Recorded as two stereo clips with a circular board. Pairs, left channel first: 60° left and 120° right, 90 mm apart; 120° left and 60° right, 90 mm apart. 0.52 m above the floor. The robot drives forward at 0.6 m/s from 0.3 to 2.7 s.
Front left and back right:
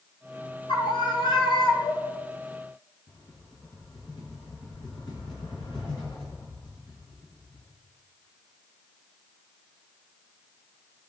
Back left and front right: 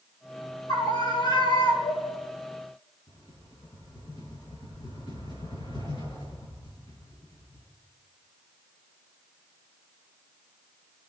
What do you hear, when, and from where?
0.7 s a scream: 80° left, 3.5 m; by 2.2 s 100° left, 3.5 m
3.1 s a rattle: 90° left, 5.5 m